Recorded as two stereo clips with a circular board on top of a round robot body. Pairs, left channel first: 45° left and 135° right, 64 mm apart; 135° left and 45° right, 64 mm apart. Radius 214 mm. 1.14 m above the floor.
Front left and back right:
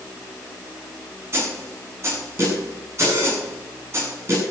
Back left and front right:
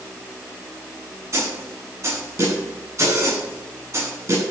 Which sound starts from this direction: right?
A snare drum, at 1.3 s.